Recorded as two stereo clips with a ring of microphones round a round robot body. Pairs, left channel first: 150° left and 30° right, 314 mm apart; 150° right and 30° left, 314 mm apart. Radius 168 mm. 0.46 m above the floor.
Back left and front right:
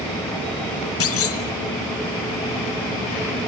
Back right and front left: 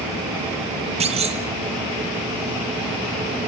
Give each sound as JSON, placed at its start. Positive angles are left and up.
{"t": 1.0, "sound": "a clunk", "azimuth_deg": 100, "distance_m": 1.8}